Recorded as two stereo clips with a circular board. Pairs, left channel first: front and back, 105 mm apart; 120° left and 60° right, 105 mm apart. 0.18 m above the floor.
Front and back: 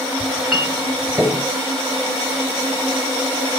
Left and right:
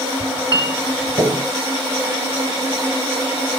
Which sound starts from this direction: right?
A clink, at 0.2 s.